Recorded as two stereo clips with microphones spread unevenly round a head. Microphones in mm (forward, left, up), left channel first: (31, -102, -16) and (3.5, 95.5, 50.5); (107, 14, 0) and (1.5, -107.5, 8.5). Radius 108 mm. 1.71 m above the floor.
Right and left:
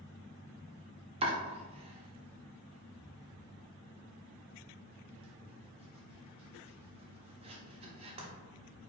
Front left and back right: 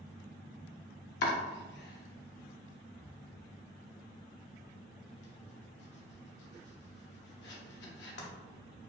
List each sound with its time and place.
1.2 s chopping: 35° left, 0.7 m